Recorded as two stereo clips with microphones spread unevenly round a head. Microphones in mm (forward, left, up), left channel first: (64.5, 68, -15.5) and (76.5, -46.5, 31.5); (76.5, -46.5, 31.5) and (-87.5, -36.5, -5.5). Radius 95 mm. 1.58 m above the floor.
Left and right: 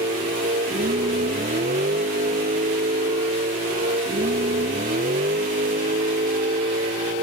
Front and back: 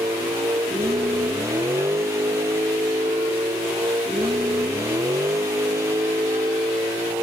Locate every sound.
0.0 s a vehicle: 110° right